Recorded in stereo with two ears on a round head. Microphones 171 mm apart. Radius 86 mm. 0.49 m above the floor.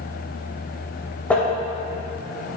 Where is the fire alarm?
I don't hear a fire alarm.